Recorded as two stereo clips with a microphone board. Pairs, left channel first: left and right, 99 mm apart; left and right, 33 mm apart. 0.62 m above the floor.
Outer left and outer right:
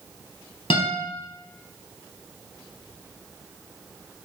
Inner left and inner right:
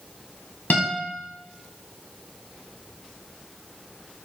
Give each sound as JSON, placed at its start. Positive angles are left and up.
{"t": 0.7, "sound": "a guitar", "side_deg": 85, "distance_m": 2.5}